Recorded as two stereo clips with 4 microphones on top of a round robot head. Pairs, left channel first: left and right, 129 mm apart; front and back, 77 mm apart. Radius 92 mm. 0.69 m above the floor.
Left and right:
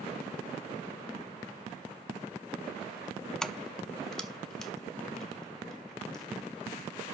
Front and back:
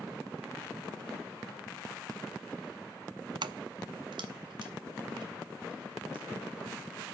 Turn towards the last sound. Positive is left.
turn(degrees=175)